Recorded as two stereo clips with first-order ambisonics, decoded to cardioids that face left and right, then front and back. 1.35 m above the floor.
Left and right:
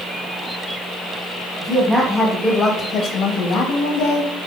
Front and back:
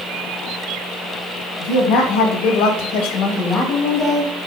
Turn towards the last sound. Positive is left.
turn(degrees=80)